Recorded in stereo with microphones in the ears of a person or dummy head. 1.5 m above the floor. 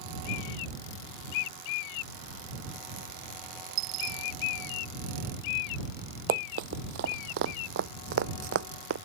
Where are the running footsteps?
45° right (ahead or behind); by 9.0 s 70° right (ahead or behind).